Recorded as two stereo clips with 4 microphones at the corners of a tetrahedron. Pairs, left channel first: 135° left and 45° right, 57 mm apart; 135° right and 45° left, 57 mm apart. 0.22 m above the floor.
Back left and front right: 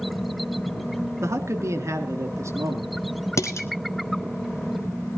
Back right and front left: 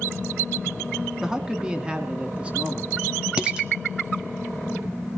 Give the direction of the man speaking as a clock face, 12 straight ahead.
1 o'clock.